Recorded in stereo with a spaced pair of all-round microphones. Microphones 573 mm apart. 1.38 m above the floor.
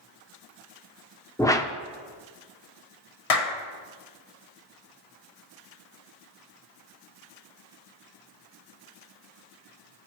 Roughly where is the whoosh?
Centre.